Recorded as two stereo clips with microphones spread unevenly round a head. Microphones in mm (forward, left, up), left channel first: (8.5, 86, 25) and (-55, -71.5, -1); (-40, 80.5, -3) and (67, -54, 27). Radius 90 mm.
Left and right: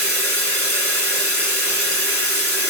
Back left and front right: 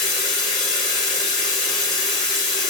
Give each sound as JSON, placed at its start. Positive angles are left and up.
{"t": 0.0, "sound": "running water", "azimuth_deg": 25, "distance_m": 1.5}